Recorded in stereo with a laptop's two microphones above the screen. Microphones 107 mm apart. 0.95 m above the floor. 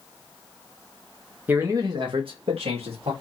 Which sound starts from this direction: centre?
A man speaking, at 1.5 s.